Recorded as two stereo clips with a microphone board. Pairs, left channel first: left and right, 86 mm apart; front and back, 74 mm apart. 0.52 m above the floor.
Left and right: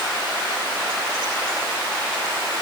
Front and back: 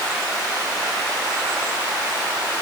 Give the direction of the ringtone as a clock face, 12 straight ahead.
No ringtone in this recording.